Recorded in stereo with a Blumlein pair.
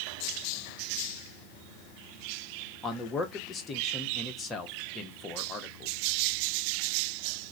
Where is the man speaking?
15° left, 1.0 m.